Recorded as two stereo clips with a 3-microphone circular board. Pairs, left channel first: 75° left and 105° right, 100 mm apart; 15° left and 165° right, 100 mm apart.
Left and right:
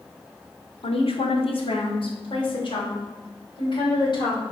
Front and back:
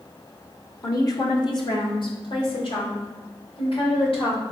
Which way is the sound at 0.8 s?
70° left.